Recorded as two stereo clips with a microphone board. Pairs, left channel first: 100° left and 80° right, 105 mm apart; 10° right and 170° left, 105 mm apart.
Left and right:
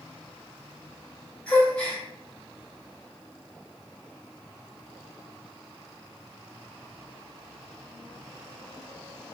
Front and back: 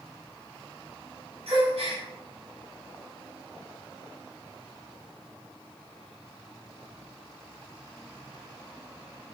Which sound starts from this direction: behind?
A gasp, at 1.5 s.